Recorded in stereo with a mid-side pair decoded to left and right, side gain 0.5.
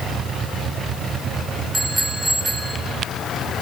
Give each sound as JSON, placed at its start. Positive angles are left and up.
{"t": 1.7, "sound": "a bicycle bell", "azimuth_deg": -10, "distance_m": 6.5}